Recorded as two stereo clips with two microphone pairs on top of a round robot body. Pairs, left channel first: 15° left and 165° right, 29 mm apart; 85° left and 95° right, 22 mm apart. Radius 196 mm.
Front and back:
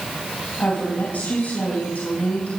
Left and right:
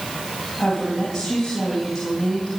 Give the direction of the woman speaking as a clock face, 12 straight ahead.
12 o'clock.